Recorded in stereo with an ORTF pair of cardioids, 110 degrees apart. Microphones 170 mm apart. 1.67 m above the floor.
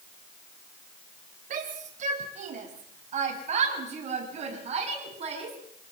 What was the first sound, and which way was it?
A shout, 50° right.